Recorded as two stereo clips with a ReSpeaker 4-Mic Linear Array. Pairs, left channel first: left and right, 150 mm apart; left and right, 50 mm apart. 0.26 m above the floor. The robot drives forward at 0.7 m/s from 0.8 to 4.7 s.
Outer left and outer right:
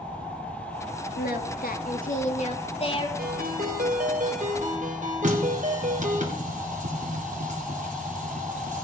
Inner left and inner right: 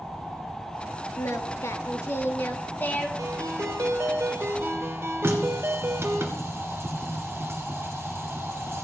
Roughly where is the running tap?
Right.